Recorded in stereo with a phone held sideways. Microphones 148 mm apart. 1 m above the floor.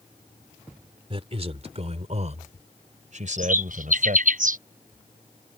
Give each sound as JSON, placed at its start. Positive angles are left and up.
{"t": 1.1, "sound": "a man speaking", "side_deg": -40}
{"t": 3.4, "sound": "a bird", "side_deg": -65}